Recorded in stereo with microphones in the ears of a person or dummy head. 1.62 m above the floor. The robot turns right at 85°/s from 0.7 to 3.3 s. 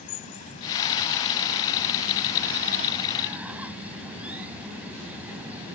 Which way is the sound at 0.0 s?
130° left.